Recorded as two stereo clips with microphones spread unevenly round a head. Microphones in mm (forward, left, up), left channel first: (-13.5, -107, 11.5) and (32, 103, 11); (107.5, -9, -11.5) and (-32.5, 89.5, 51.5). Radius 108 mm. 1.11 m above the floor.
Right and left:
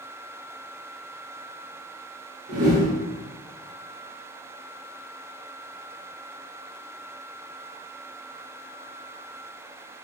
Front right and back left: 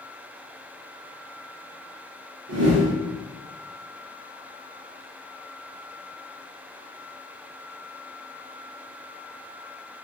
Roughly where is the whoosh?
Behind left.